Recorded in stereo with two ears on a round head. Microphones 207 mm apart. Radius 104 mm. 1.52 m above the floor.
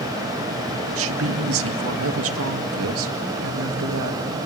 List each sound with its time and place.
0.9 s a woman speaking: 65° right (ahead or behind), 2 m